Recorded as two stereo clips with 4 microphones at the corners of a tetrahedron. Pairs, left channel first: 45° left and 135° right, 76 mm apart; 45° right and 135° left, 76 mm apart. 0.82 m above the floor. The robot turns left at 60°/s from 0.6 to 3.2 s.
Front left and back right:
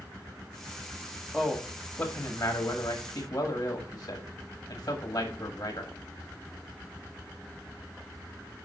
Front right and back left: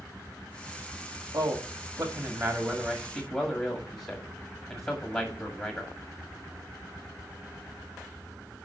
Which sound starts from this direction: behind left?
A man speaking, at 1.3 s.